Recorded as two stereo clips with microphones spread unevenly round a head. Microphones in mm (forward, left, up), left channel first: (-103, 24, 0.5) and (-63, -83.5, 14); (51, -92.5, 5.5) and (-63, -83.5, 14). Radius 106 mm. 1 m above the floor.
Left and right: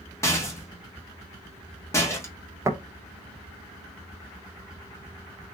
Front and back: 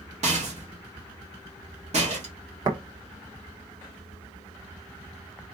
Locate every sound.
0.2 s a rattle: 170° left, 1.6 m
2.6 s tapping: 135° right, 1.2 m